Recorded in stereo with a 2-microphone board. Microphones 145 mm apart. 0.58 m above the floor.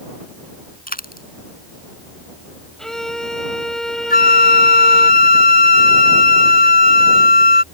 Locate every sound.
0.9 s a dropped coin: 75° left (ahead or behind)
2.8 s a violin: 5° left (ahead or behind)
4.1 s a flute: 80° left